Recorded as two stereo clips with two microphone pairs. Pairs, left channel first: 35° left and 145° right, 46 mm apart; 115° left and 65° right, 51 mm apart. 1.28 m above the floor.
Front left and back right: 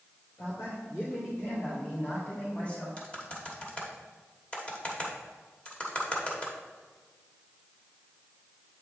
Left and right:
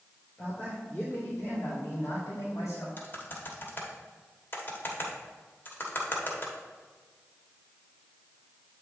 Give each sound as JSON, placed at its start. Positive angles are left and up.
{"t": 0.4, "sound": "a man speaking", "azimuth_deg": 50, "distance_m": 2.5}
{"t": 3.0, "sound": "typing on a keyboard", "azimuth_deg": 90, "distance_m": 1.2}